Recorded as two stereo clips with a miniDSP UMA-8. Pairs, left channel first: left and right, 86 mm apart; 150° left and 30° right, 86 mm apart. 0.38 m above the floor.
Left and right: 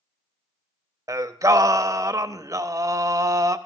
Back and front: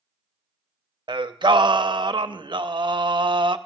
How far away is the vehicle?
I don't hear a vehicle.